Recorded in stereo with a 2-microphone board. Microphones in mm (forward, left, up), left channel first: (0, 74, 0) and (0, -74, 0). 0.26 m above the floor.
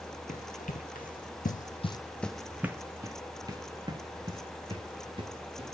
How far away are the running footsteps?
About 1.4 m.